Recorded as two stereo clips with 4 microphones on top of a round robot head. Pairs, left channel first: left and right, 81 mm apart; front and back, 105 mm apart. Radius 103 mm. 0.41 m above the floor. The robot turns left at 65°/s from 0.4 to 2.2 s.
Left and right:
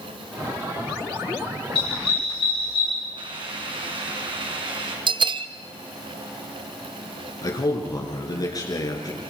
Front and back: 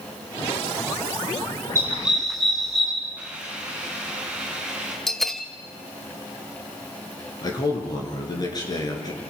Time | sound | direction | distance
1.8 | a dog barking | 120° left | 7.5 m
3.2 | a hiss | 100° right | 4.5 m
5.1 | a bell | 85° right | 0.9 m
7.4 | a man speaking | 50° left | 6.5 m